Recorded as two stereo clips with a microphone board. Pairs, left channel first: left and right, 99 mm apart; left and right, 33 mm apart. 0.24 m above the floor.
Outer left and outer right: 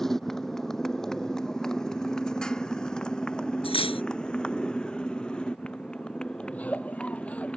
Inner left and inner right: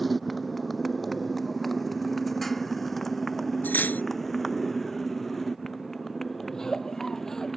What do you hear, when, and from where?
0.0 s a motorcycle: 5° left (ahead or behind); by 7.6 s 10° left (ahead or behind)
3.6 s cutlery clinking: 75° left (ahead or behind)
6.5 s a giggle: 15° left (ahead or behind)